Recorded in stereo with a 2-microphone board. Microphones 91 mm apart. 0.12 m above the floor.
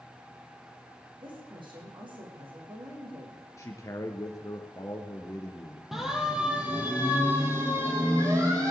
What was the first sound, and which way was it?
A woman speaking, 60° right (ahead or behind).